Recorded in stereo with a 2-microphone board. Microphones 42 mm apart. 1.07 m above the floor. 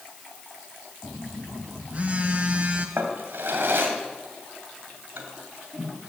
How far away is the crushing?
I don't hear crushing.